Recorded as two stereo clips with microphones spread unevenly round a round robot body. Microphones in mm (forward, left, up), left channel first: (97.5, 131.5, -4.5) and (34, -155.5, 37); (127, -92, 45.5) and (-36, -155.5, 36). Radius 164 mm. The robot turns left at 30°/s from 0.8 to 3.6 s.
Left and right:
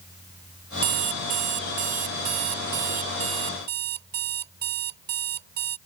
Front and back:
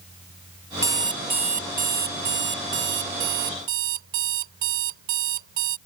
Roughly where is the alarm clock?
Right.